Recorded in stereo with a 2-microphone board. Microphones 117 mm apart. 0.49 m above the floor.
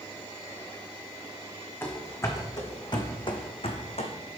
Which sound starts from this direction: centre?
Running footsteps, at 1.8 s.